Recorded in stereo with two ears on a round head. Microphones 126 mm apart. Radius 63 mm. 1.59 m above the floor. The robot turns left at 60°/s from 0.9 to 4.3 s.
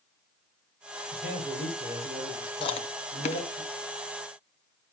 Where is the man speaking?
100° right, 5.5 m; by 3.6 s 110° left, 5.5 m.